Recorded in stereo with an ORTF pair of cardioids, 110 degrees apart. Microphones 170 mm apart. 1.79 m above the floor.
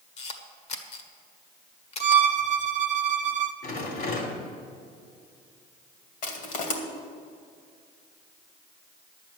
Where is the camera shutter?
40° left, 1.7 m.